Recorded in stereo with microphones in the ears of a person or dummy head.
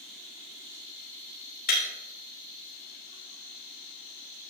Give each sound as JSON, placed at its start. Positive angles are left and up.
{"t": 1.7, "sound": "breaking glass", "side_deg": 50, "distance_m": 3.0}